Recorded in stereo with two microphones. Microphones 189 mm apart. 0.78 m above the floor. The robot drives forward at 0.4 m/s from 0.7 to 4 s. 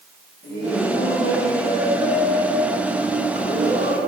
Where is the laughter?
55° left (ahead or behind), 7.5 m; by 4.1 s 65° left (ahead or behind), 7 m.